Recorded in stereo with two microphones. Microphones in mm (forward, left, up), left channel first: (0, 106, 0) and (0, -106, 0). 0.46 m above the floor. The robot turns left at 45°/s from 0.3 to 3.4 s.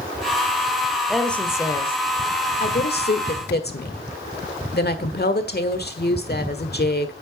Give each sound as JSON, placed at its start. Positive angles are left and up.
{"t": 1.1, "sound": "a woman speaking", "azimuth_deg": -175, "distance_m": 1.3}